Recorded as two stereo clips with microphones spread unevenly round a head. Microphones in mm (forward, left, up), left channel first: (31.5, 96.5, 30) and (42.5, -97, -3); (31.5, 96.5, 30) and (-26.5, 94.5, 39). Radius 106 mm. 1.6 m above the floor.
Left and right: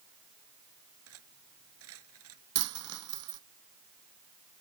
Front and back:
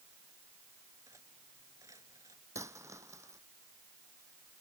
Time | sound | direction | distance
1.1 | cutlery clinking | 110° right | ?
2.5 | a dropped coin | 105° right | ?